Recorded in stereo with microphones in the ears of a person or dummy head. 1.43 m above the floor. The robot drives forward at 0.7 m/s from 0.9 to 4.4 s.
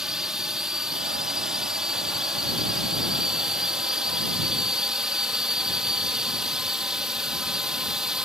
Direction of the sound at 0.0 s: 5° right (ahead or behind).